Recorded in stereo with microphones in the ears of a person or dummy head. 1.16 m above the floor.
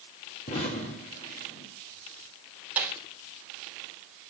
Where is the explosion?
40° left (ahead or behind), 2.5 m.